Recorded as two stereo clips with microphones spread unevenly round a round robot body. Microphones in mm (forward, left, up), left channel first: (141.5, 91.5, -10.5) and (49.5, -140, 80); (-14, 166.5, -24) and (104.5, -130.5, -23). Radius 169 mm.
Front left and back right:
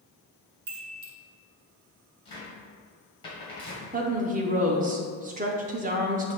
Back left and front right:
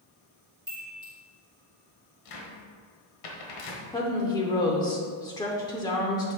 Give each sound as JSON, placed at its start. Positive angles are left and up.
{"t": 0.7, "sound": "a chime", "azimuth_deg": -140, "distance_m": 1.2}
{"t": 2.2, "sound": "a cupboard door", "azimuth_deg": 135, "distance_m": 1.3}
{"t": 3.9, "sound": "a woman speaking", "azimuth_deg": 180, "distance_m": 0.7}